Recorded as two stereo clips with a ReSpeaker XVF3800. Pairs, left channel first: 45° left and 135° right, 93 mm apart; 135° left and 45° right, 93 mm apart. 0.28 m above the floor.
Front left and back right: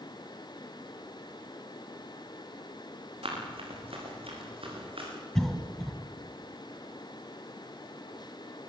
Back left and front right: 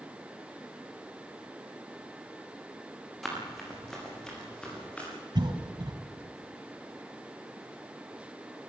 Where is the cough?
40° right, 1.9 m.